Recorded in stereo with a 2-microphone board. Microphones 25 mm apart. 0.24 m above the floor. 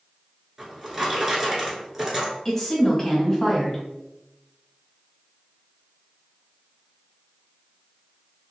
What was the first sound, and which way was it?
A drawer, 20° right (ahead or behind).